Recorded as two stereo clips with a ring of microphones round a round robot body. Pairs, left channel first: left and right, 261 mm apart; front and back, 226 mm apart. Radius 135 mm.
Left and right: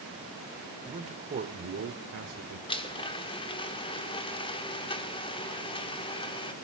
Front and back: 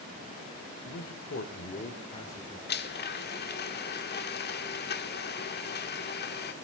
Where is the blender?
25° left, 1.4 m.